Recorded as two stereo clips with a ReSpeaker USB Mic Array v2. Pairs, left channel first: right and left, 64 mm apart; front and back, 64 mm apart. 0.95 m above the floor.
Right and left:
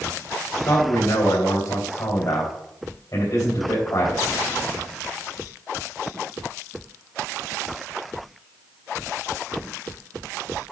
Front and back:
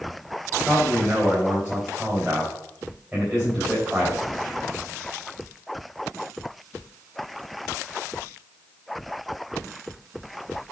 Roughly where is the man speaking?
Right.